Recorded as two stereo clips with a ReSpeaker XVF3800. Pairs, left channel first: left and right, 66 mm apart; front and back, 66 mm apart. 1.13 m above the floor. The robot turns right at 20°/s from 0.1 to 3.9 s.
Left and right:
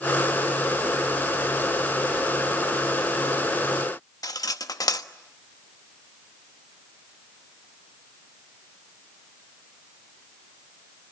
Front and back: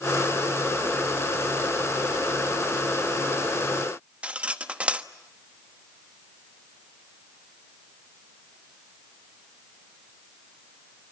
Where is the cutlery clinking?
110° left, 1.0 m.